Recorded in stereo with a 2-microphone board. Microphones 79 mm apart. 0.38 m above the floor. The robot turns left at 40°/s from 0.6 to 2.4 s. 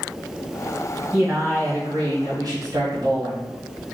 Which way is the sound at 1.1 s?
35° right.